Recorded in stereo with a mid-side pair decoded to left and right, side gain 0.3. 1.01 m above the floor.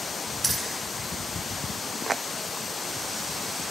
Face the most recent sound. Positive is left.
turn(degrees=-40)